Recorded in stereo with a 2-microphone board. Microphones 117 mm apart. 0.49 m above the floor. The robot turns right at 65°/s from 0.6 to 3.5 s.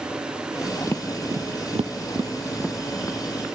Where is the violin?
I don't hear a violin.